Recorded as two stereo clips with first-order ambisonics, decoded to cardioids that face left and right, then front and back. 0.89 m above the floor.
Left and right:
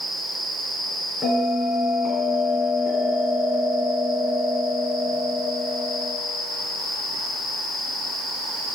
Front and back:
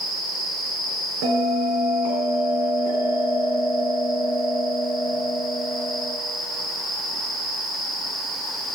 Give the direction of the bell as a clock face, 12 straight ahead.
6 o'clock.